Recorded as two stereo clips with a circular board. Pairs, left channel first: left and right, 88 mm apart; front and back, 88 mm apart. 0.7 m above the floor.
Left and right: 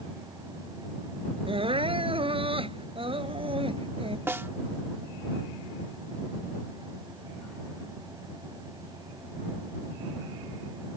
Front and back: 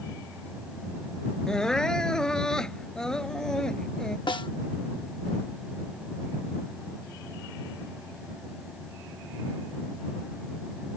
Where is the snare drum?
25° right.